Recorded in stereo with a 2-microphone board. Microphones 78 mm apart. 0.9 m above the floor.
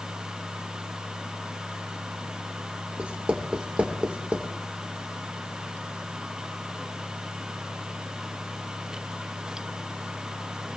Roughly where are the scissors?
I don't hear scissors.